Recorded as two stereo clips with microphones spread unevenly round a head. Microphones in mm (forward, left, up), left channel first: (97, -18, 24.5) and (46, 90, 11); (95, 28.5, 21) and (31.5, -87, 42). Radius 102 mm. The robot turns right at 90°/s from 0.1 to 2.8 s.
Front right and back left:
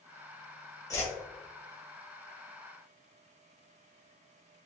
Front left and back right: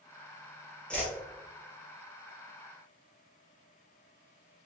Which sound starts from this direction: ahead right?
A whoosh, at 0.9 s.